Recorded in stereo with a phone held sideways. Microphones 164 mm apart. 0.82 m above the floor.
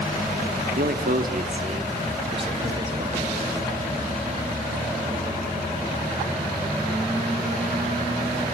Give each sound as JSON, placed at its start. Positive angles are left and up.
{"t": 0.8, "sound": "a man speaking", "side_deg": -70, "distance_m": 1.2}